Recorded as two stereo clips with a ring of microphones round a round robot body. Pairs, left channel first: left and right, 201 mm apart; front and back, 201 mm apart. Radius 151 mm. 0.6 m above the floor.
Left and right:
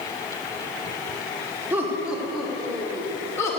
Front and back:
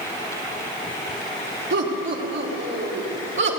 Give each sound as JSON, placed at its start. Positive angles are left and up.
{"t": 1.7, "sound": "laughter", "azimuth_deg": -170, "distance_m": 2.0}